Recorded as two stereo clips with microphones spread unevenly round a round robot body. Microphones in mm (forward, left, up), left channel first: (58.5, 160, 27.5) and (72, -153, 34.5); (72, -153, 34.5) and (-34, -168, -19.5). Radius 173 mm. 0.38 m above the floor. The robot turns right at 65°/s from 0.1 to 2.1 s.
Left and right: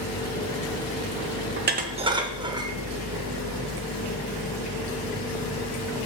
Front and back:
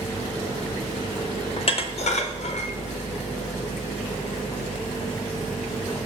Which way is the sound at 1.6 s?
50° right.